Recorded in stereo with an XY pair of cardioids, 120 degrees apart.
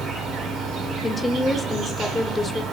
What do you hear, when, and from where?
0.0 s an insect: 65° right, 2 m
1.0 s a woman speaking: 15° left, 0.6 m